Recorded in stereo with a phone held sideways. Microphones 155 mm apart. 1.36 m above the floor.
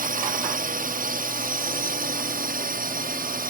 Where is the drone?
65° right (ahead or behind); by 3.5 s 70° right (ahead or behind).